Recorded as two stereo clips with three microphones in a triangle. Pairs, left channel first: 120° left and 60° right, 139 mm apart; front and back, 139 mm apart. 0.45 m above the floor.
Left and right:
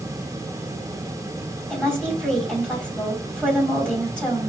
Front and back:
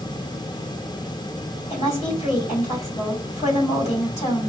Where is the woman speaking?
40° left, 2.5 m.